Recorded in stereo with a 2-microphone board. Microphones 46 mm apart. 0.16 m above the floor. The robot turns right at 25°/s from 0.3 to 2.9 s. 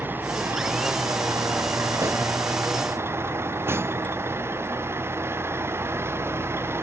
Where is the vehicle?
130° right; by 6.8 s 65° right.